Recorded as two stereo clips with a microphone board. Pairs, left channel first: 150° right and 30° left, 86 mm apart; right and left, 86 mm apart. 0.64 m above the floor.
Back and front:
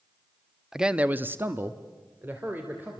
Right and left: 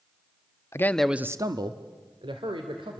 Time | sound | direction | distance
0.7 | a man speaking | 50° right | 0.9 m